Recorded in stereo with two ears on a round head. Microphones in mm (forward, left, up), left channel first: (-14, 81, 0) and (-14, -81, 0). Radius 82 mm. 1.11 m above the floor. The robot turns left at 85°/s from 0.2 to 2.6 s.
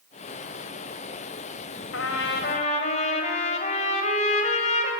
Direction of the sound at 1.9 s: 95° left.